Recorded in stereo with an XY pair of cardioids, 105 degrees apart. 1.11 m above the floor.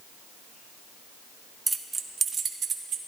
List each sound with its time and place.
1.7 s keys jangling: 15° right, 0.7 m; by 3.0 s 60° right, 1.3 m